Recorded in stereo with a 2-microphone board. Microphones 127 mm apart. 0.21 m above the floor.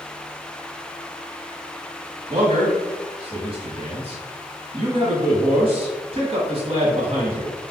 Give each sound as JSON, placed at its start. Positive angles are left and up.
{"t": 2.3, "sound": "a man speaking", "side_deg": -45, "distance_m": 1.3}